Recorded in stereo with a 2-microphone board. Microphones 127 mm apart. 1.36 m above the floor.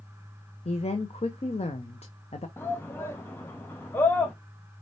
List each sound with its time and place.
0.7 s a woman speaking: 55° left (ahead or behind), 0.7 m
2.6 s a shout: 15° left (ahead or behind), 0.6 m